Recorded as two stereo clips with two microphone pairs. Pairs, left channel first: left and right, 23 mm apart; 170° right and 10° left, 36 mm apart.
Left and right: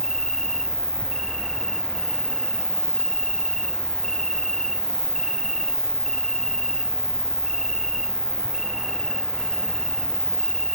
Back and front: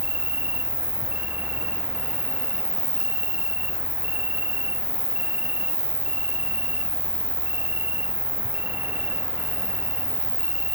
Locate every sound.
0.0 s an insect: 20° left, 1.8 m